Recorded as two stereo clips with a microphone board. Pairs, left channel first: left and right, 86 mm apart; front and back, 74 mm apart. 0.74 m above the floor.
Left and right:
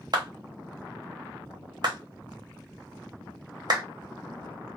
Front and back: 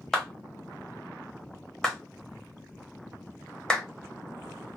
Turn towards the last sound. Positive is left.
turn(degrees=-85)